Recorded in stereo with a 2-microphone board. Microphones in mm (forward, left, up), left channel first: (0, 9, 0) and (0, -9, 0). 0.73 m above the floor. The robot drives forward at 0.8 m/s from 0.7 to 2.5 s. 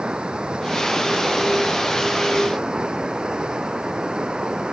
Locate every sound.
0.0 s running water: 60° right (ahead or behind); by 4.7 s 55° right (ahead or behind)